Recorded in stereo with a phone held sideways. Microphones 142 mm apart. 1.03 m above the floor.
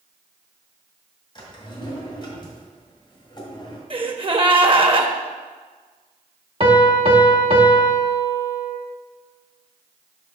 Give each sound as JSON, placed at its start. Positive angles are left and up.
{"t": 1.4, "sound": "a drawer", "side_deg": 35, "distance_m": 1.9}
{"t": 3.9, "sound": "a gasp", "side_deg": -40, "distance_m": 0.6}
{"t": 6.6, "sound": "a piano", "side_deg": -40, "distance_m": 0.9}